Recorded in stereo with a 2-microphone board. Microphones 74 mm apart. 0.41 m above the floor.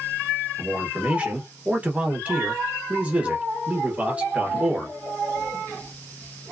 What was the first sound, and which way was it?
A man speaking, 20° right (ahead or behind).